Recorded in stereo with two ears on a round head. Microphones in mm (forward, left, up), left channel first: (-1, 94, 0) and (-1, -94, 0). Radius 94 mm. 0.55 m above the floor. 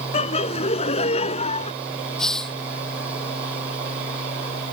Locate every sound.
0.1 s laughter: 30° left (ahead or behind)
2.2 s a hiss: 5° left (ahead or behind)